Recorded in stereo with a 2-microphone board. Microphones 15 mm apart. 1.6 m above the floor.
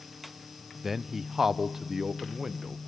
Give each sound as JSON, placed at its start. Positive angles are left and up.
{"t": 0.8, "sound": "a man speaking", "side_deg": -15, "distance_m": 0.7}